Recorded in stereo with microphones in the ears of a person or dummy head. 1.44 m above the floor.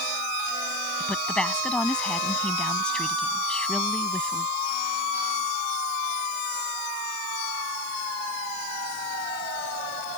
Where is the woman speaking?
5° left (ahead or behind).